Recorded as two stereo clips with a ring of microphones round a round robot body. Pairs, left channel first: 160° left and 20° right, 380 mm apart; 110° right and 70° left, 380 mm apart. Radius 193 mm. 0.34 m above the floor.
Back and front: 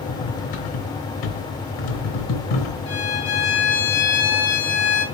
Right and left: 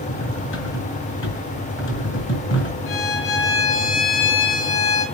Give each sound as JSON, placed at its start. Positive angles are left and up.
{"t": 0.1, "sound": "cutlery clinking", "azimuth_deg": -170, "distance_m": 3.0}
{"t": 2.9, "sound": "a violin", "azimuth_deg": -145, "distance_m": 4.0}